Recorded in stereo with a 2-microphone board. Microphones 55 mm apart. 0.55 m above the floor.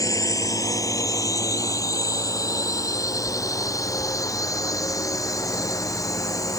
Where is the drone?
85° left.